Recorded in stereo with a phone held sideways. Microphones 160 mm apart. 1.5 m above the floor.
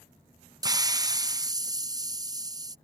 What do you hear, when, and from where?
0.6 s a hiss: 25° right (ahead or behind)